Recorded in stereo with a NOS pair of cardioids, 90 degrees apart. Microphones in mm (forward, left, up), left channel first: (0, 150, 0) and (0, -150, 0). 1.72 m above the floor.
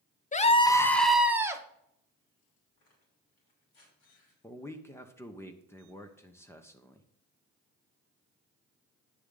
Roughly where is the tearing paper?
Ahead left.